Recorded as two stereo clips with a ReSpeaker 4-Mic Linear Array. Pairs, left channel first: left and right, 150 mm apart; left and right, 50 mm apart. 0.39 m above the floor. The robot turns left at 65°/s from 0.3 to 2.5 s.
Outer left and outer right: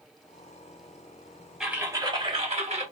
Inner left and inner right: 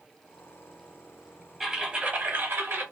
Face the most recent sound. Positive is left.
turn(degrees=-60)